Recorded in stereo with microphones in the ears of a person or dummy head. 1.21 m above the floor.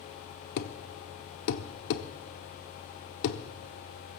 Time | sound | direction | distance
0.6 | a thud | 60° left (ahead or behind) | 1.1 m